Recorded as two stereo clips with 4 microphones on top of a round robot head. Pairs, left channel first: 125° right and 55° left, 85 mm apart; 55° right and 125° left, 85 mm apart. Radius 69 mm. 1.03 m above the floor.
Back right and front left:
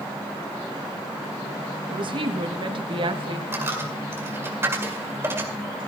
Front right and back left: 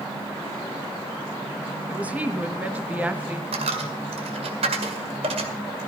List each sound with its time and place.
1.9 s a woman speaking: 55° left, 1.4 m
3.5 s a dropped coin: 120° left, 1.9 m